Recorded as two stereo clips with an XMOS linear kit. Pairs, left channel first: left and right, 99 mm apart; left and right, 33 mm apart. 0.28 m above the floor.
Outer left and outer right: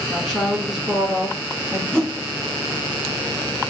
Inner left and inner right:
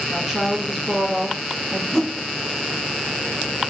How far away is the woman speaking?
About 1.4 m.